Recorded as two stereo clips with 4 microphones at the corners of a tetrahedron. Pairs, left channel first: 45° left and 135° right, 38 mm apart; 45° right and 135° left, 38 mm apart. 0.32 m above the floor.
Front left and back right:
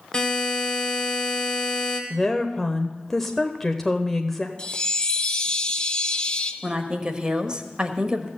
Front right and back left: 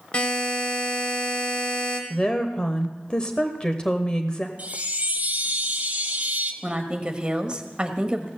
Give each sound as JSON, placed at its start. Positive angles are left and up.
{"t": 0.1, "sound": "a buzzer", "azimuth_deg": -5, "distance_m": 1.7}
{"t": 2.1, "sound": "a woman speaking", "azimuth_deg": -25, "distance_m": 0.9}
{"t": 4.6, "sound": "a chime", "azimuth_deg": 100, "distance_m": 1.0}
{"t": 6.6, "sound": "a woman speaking", "azimuth_deg": 175, "distance_m": 1.2}